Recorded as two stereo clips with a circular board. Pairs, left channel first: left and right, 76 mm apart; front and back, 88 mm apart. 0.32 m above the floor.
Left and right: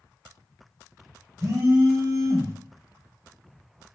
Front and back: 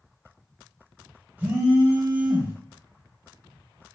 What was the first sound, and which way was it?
A phone buzzing, 115° right.